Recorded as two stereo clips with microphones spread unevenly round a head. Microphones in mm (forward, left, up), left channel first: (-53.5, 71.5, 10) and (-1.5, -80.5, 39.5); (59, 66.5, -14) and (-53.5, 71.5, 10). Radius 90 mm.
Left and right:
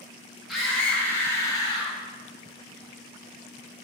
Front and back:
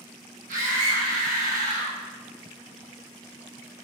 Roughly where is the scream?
Behind.